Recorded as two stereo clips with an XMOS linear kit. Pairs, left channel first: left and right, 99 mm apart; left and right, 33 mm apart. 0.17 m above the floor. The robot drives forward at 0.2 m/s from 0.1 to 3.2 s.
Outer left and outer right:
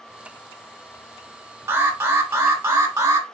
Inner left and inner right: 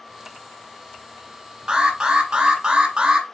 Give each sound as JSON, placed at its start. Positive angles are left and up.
{"t": 1.7, "sound": "an alarm", "side_deg": -25, "distance_m": 1.2}